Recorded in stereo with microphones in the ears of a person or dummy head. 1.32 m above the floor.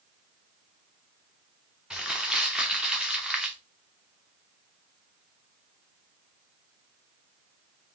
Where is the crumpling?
5° right (ahead or behind), 0.8 m.